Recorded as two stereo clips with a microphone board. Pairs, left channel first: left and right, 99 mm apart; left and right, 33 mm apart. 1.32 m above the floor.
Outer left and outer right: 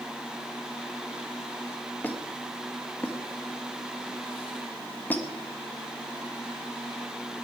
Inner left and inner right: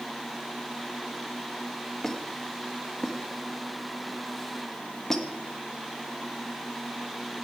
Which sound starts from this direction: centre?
A squeak, at 2.0 s.